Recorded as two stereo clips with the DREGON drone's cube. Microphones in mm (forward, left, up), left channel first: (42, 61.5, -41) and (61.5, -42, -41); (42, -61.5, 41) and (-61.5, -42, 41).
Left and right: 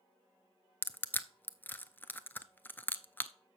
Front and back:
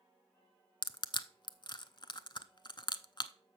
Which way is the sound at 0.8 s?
30° left.